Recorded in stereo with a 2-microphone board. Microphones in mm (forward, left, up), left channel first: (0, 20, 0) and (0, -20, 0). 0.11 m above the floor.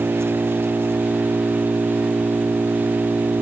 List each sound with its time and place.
0.0 s an engine running: 85° right